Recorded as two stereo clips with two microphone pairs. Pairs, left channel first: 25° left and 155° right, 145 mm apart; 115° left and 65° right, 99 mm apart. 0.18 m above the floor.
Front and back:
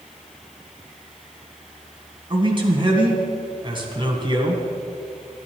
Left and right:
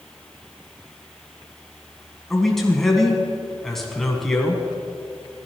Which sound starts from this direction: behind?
A man speaking, at 2.3 s.